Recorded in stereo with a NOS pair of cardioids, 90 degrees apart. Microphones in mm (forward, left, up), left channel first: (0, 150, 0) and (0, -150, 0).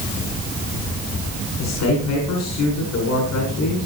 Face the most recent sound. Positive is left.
turn(degrees=65)